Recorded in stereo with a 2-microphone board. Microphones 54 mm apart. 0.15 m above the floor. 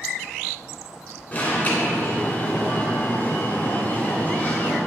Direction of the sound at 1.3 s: 30° left (ahead or behind).